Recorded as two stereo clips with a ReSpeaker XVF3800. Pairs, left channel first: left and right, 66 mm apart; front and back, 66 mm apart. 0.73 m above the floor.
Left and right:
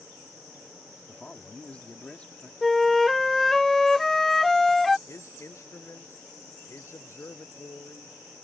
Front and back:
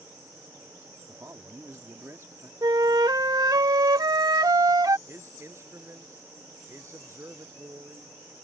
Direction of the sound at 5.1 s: 135° left.